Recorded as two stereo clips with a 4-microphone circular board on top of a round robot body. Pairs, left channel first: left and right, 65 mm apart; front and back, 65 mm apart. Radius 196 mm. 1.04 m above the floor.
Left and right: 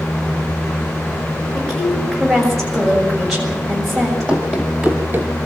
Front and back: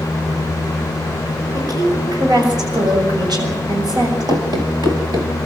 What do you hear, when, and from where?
1.6 s a woman speaking: straight behind, 7 m
4.3 s running footsteps: 160° left, 1.9 m; by 5.3 s 140° right, 1.4 m